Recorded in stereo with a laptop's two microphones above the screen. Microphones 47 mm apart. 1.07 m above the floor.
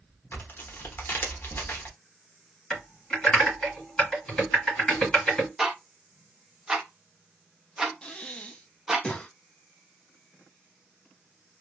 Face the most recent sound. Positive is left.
turn(degrees=20)  # may be behind; listen again after turning